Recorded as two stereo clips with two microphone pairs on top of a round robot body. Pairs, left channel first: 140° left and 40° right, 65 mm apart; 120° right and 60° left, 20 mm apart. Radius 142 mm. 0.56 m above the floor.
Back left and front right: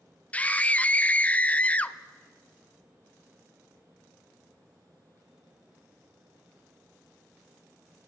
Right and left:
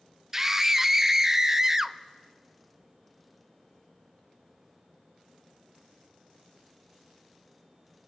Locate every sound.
0.3 s a scream: 80° left, 0.6 m